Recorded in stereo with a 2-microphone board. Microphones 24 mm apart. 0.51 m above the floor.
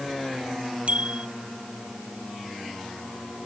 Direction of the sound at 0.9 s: 60° right (ahead or behind).